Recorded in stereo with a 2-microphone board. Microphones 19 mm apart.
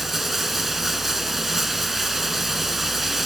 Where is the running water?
15° right (ahead or behind), 1.1 m.